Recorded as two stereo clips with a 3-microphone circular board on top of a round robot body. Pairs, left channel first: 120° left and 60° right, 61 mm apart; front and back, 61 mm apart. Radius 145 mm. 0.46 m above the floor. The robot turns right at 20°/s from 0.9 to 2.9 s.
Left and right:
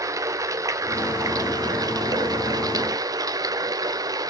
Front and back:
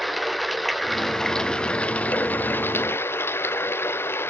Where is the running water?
90° right, 0.9 m; by 4.3 s 50° right, 0.9 m.